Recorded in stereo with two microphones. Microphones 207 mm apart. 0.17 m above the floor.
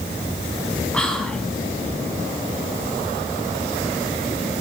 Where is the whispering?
5° left (ahead or behind), 1.1 m.